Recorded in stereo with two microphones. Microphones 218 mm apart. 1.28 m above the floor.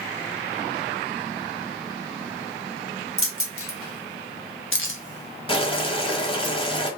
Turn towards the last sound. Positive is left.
turn(degrees=25)  # may be behind; listen again after turning